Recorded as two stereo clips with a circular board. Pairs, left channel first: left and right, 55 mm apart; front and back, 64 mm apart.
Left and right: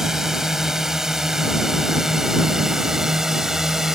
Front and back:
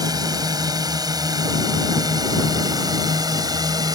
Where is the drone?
170° right; by 4.0 s 175° right.